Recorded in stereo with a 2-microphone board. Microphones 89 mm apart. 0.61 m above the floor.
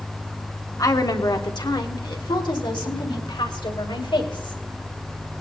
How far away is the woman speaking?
About 1.5 m.